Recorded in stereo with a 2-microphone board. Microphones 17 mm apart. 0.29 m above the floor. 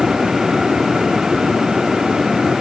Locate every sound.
Only background noise.